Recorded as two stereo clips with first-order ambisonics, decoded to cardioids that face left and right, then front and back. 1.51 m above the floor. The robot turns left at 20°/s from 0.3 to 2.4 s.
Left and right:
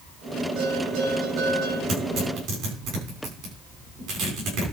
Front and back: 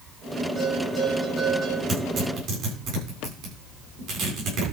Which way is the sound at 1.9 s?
130° right.